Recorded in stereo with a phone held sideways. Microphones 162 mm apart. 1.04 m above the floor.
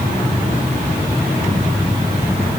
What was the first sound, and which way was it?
Only background noise.